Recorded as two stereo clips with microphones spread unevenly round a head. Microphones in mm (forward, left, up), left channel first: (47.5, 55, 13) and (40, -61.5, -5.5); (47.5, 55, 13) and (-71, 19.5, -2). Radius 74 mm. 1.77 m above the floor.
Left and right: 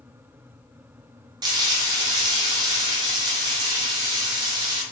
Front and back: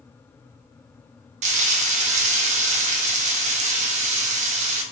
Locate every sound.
1.4 s frying: 155° right, 0.5 m